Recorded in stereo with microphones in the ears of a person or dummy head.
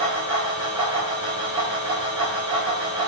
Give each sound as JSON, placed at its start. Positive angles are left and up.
{"t": 0.0, "sound": "a fan", "side_deg": -25, "distance_m": 2.5}